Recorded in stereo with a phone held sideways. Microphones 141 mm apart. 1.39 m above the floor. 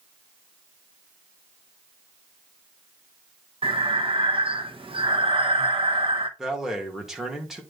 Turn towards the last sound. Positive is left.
turn(degrees=-5)  # may be behind; listen again after turning